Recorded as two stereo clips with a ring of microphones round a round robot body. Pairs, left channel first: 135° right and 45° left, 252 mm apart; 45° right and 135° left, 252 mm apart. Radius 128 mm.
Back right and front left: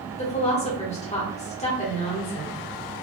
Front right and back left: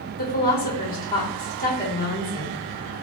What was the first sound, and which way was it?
A woman speaking, 80° right.